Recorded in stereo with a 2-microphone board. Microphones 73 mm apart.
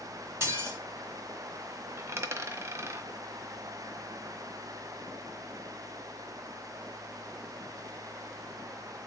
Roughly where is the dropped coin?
Right.